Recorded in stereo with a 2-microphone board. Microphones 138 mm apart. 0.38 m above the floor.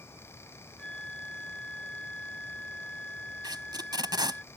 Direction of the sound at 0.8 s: 5° left (ahead or behind).